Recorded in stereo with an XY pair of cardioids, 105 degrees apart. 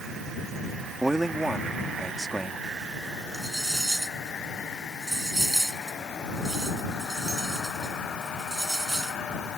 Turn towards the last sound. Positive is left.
turn(degrees=-10)